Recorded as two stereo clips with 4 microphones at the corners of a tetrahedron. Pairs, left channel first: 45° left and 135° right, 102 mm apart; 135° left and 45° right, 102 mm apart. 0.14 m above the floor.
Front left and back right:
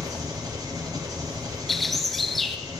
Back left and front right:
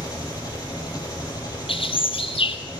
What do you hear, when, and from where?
0.0 s an engine running: straight behind, 3 m
1.7 s a bird: 135° left, 0.8 m